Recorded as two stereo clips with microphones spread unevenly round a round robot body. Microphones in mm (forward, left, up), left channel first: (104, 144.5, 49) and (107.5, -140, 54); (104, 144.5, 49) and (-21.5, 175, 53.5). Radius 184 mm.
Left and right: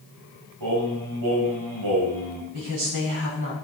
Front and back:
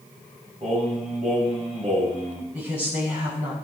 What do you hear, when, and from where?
0.6 s singing: 120° right, 3 m
2.5 s a woman speaking: 130° right, 4 m